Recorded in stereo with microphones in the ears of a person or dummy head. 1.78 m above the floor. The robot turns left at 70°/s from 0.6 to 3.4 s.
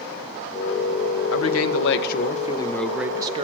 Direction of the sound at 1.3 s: 110° left.